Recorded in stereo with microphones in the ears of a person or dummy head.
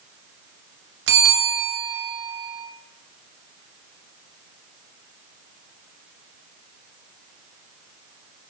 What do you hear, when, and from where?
1.1 s a bell: 55° right (ahead or behind), 0.5 m